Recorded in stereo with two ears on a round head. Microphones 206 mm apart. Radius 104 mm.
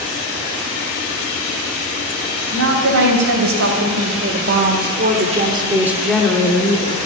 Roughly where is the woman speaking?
Right.